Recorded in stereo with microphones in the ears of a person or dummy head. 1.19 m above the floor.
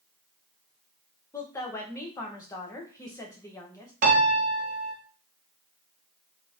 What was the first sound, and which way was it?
A woman speaking, 15° left (ahead or behind).